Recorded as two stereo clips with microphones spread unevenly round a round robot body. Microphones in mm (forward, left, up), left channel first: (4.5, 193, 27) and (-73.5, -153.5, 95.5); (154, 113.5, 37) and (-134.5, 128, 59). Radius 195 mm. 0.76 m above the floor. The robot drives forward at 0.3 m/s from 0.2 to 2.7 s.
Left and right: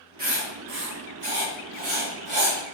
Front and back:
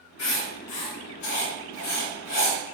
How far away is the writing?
About 1.9 m.